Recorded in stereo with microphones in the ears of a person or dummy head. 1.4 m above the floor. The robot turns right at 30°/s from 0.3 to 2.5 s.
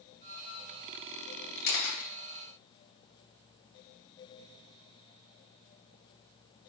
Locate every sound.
1.6 s a camera shutter: 60° left (ahead or behind), 1.0 m; by 2.1 s 45° left (ahead or behind), 1.0 m